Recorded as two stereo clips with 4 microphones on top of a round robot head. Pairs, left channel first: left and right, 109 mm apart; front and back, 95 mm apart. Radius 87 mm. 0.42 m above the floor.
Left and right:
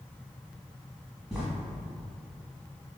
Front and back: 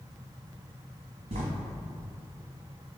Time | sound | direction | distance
1.3 | writing | 175° right | 0.9 m